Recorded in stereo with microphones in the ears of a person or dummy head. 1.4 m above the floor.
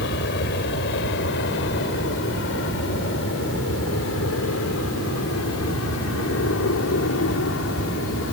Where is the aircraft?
60° left (ahead or behind); by 8.3 s 65° left (ahead or behind).